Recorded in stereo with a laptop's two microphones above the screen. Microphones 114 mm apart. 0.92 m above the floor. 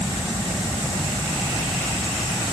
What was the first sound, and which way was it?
Only background noise.